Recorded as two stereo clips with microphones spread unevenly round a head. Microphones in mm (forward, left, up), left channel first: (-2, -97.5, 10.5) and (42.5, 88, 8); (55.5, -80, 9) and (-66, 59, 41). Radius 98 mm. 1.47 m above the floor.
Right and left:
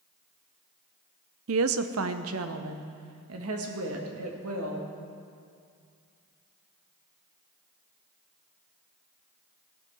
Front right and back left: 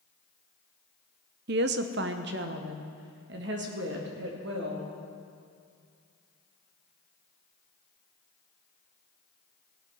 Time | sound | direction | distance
1.5 | a woman speaking | 100° left | 0.5 m